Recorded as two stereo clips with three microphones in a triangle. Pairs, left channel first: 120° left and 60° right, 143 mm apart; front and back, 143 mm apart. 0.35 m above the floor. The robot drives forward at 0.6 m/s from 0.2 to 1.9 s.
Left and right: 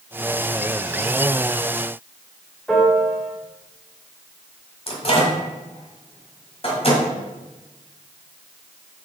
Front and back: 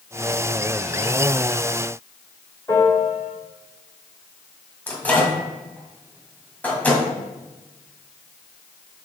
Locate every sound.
2.7 s a piano: 35° left, 1.6 m
4.9 s a microwave: 80° left, 1.6 m